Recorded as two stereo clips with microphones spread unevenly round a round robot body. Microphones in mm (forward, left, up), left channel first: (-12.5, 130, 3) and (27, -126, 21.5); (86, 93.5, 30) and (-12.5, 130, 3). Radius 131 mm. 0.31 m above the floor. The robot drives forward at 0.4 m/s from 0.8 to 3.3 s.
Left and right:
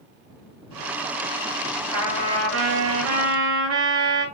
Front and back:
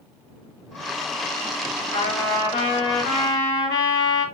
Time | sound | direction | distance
1.9 | a trumpet | 40° right | 6 m